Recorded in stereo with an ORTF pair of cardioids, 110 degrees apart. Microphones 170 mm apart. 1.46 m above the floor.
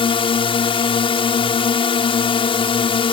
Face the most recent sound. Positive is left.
turn(degrees=30)